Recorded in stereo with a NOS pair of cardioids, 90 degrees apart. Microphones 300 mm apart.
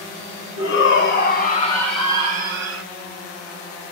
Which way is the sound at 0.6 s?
55° left.